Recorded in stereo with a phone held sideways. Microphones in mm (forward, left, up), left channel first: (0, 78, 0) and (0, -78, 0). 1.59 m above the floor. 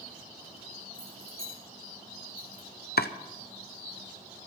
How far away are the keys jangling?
About 4 m.